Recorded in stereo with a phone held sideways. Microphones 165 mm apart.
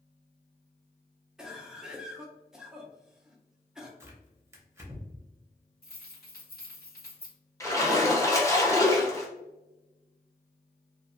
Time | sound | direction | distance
1.4 | a cough | 5° right (ahead or behind) | 0.6 m
4.0 | tearing paper | 15° right (ahead or behind) | 0.7 m
5.8 | keys jangling | 65° left (ahead or behind) | 1.2 m
7.6 | a splash | 20° left (ahead or behind) | 0.7 m